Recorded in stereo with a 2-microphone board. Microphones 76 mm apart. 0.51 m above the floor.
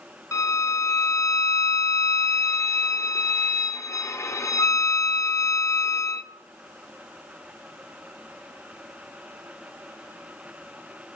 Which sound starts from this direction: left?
A violin, at 0.3 s.